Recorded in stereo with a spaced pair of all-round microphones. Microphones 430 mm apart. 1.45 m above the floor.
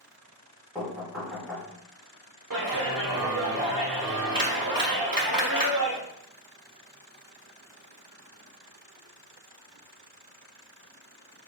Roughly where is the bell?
I don't hear a bell.